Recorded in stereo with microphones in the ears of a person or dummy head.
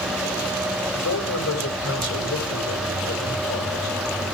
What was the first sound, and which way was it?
A man speaking, 70° left (ahead or behind).